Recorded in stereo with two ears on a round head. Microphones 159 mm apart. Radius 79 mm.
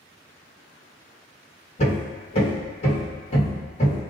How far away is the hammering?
About 1.4 m.